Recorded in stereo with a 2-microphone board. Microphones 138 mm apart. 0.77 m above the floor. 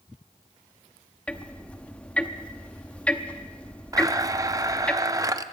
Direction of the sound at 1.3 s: 10° left (ahead or behind).